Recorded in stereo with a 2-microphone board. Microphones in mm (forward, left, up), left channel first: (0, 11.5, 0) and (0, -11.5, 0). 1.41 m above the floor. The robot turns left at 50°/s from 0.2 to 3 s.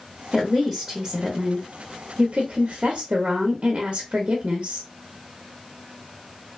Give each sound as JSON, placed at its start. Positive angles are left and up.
{"t": 0.3, "sound": "a woman speaking", "azimuth_deg": 5, "distance_m": 0.6}